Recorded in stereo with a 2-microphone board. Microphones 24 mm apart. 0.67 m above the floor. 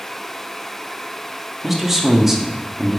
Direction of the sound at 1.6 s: 15° right (ahead or behind).